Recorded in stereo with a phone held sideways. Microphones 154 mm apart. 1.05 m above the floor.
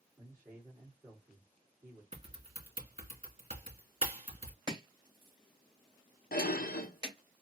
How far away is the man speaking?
About 1.8 m.